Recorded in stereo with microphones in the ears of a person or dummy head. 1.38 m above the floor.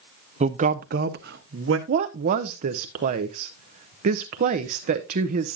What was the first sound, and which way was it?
A man speaking, 35° right (ahead or behind).